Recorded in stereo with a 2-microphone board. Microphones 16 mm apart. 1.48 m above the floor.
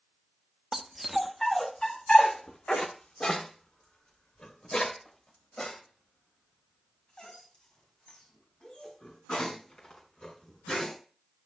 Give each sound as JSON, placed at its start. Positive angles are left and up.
{"t": 0.7, "sound": "a dog barking", "side_deg": -25, "distance_m": 1.0}